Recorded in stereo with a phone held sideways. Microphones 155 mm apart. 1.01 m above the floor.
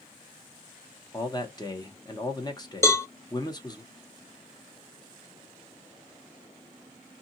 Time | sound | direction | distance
1.1 | a man speaking | 30° left (ahead or behind) | 0.9 m
2.8 | a cowbell | 20° left (ahead or behind) | 0.5 m